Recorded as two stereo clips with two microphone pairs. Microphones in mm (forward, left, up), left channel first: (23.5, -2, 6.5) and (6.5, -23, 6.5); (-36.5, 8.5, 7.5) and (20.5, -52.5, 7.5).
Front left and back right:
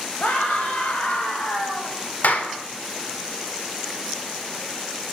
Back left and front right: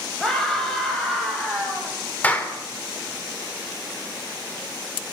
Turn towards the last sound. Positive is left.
turn(degrees=60)